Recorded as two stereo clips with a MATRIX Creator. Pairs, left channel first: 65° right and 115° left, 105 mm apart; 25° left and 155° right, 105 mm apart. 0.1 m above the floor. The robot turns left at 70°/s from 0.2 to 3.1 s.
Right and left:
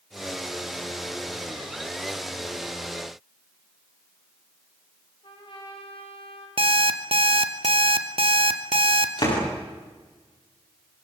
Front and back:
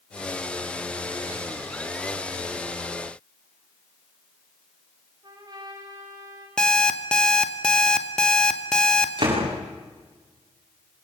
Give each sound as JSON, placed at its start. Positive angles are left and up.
{"t": 5.2, "sound": "a trumpet", "azimuth_deg": -105, "distance_m": 7.5}
{"t": 6.6, "sound": "an alarm clock", "azimuth_deg": 105, "distance_m": 1.7}
{"t": 9.2, "sound": "a door slam", "azimuth_deg": -115, "distance_m": 10.0}